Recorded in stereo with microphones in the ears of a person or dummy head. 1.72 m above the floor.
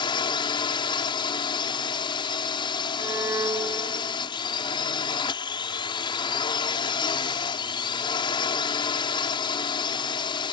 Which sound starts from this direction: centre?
A violin, at 3.0 s.